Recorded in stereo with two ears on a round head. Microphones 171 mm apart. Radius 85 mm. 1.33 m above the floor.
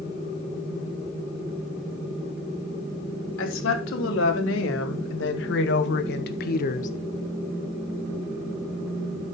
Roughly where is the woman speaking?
Left.